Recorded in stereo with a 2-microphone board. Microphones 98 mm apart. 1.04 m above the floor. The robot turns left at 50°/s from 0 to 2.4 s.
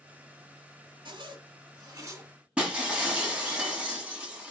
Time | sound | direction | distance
1.1 | a zipper | 90° right | 1.7 m
2.6 | breaking glass | 10° right (ahead or behind) | 1.6 m